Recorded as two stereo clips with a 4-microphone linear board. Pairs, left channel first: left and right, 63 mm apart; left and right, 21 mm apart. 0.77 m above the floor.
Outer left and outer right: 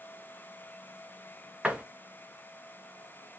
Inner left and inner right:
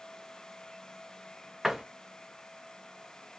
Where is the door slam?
20° right (ahead or behind), 0.6 m.